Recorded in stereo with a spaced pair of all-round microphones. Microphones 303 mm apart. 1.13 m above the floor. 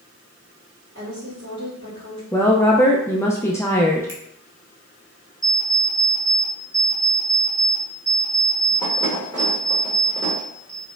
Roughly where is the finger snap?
Left.